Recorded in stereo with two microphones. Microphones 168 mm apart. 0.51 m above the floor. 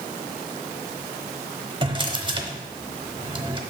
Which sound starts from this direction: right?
A drawer, at 1.8 s.